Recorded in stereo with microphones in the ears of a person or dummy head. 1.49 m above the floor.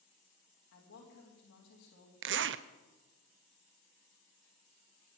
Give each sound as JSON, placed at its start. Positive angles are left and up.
{"t": 0.7, "sound": "a woman speaking", "side_deg": 60, "distance_m": 3.0}
{"t": 2.2, "sound": "a zipper", "side_deg": -60, "distance_m": 0.6}